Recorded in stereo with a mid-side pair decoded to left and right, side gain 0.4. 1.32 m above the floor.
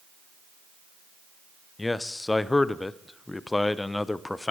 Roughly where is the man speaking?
Ahead.